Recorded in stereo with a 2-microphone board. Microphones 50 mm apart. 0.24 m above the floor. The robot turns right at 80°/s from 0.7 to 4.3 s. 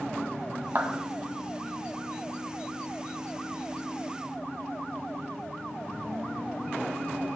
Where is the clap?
50° right (ahead or behind), 1.1 m.